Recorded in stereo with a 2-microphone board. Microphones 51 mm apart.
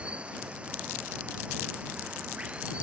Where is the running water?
20° right (ahead or behind).